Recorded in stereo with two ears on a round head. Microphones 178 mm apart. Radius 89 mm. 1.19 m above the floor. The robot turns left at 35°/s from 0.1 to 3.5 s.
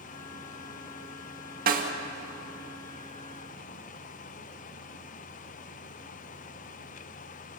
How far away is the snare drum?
About 1.9 m.